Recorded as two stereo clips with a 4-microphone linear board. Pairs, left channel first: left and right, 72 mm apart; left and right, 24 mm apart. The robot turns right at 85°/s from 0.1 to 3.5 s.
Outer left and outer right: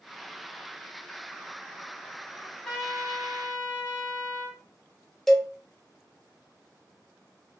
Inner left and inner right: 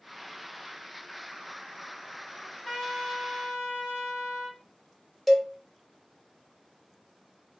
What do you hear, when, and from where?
2.4 s a trumpet: 150° left, 1.4 m; by 4.6 s 110° right, 1.4 m
5.3 s a cowbell: 5° left (ahead or behind), 0.6 m